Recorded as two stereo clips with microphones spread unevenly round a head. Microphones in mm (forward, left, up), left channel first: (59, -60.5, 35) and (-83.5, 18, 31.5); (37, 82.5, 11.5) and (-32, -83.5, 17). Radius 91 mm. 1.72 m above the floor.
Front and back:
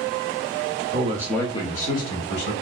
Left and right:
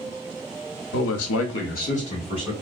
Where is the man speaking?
100° left, 0.6 m; by 2.5 s 5° left, 1.5 m.